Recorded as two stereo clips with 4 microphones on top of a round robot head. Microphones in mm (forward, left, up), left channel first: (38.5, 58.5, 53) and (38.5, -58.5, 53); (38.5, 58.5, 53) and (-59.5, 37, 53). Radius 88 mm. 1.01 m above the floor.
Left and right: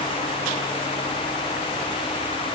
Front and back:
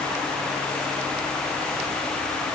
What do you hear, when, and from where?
Only background noise.